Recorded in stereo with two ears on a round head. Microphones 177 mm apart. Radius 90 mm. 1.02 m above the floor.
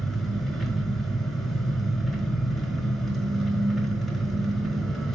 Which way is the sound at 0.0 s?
Centre (ahead or behind).